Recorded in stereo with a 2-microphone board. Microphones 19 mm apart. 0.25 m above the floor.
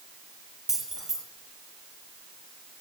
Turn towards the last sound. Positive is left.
turn(degrees=-25)  # may be behind; listen again after turning